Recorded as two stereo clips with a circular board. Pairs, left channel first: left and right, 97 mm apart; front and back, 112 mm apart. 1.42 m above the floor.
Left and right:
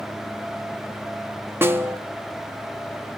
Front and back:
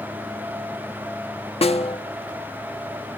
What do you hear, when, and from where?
1.6 s a snare drum: 25° right, 1.3 m